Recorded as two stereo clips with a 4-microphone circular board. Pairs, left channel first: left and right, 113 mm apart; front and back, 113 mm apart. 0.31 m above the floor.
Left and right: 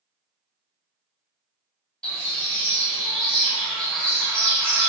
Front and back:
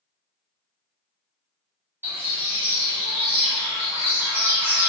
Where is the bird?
165° left, 1.3 m.